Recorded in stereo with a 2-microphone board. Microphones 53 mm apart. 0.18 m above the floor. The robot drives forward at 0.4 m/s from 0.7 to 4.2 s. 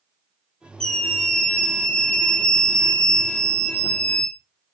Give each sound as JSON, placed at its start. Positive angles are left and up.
{"t": 0.8, "sound": "a scream", "side_deg": 10, "distance_m": 3.5}